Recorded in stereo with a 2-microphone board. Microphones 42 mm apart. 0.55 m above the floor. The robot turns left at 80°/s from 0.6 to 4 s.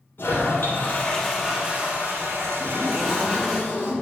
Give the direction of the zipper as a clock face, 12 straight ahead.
5 o'clock.